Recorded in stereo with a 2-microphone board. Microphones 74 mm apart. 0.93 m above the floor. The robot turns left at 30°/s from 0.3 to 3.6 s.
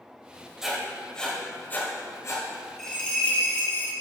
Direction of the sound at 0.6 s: 5° right (ahead or behind).